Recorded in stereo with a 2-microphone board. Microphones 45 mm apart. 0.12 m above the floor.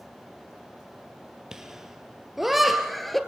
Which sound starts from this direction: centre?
Laughter, at 1.5 s.